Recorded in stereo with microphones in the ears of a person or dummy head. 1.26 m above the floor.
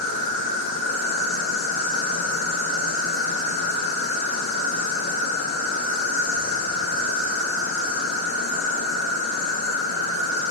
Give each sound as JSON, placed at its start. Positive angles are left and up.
{"t": 0.0, "sound": "an insect", "side_deg": 75, "distance_m": 1.6}